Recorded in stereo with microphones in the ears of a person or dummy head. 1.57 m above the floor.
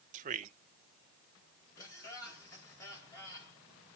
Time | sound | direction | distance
0.1 | a man speaking | 40° right (ahead or behind) | 0.8 m
1.8 | laughter | 15° left (ahead or behind) | 4 m